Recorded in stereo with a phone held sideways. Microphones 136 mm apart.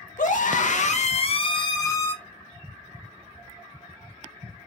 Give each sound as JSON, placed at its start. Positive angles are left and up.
{"t": 0.2, "sound": "a scream", "side_deg": 70, "distance_m": 0.9}